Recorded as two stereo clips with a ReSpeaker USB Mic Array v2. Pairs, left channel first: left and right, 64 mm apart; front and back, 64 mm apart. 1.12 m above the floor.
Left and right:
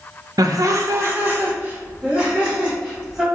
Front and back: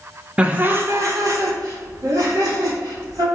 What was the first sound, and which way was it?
Laughter, 105° right.